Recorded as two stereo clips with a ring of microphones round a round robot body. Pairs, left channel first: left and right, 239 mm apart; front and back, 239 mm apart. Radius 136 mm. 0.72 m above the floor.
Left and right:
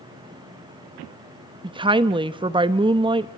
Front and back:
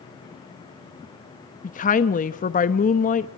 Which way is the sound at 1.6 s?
30° right.